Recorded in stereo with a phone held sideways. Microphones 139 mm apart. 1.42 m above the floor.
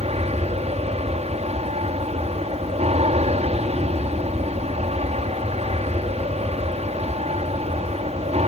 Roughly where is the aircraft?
Right.